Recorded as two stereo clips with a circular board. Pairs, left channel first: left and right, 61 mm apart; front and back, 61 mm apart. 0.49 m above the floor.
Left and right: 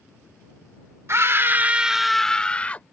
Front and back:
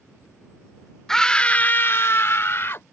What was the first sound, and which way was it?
A scream, 80° right.